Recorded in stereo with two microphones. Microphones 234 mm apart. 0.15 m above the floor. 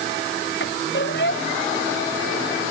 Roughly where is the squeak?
Left.